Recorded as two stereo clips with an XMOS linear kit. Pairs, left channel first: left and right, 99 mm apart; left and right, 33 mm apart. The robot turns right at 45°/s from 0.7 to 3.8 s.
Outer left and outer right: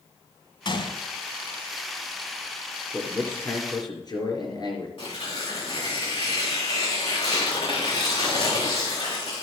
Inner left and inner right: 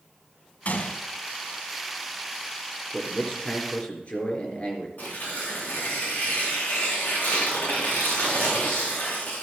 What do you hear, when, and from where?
0.7 s a gunshot: 55° left (ahead or behind), 1.0 m
2.9 s a man speaking: 5° left, 3.5 m; by 4.9 s 45° left, 3.5 m
5.0 s tearing paper: 65° left (ahead or behind), 4.5 m